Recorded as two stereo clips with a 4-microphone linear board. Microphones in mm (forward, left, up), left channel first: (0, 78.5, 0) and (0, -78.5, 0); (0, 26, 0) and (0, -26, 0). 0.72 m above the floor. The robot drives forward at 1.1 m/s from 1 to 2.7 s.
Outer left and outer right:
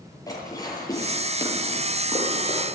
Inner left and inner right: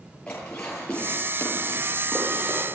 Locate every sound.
0.3 s dishes clattering: 25° left (ahead or behind), 8.5 m; by 2.7 s 20° left (ahead or behind), 10 m